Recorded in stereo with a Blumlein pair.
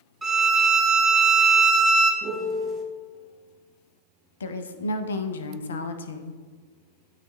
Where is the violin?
20° right, 0.8 m.